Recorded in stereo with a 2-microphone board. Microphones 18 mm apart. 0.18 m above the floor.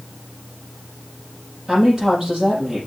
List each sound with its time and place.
1.7 s a woman speaking: 25° right (ahead or behind), 5.5 m